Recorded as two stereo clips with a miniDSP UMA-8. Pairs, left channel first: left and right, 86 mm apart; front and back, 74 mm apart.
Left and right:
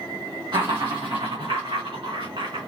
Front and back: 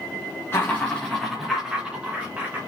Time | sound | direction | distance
0.5 | laughter | 55° right | 1.5 m